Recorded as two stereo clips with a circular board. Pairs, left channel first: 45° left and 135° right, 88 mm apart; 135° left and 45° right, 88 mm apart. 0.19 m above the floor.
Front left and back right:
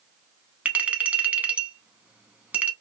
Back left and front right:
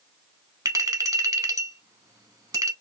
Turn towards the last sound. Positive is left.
turn(degrees=-65)